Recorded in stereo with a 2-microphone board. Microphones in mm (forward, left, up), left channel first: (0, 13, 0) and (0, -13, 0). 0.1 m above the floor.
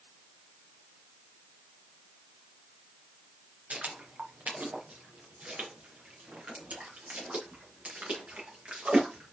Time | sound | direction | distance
3.7 | footsteps | 80° right | 2.5 m